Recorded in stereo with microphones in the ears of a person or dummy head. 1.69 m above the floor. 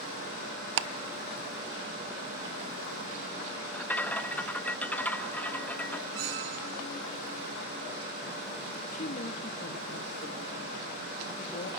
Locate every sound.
0.8 s ticking: 60° right (ahead or behind), 0.7 m
3.7 s a rattle: 5° left (ahead or behind), 0.5 m
6.1 s a squeak: 60° right (ahead or behind), 2 m
8.8 s a woman speaking: 40° left (ahead or behind), 3 m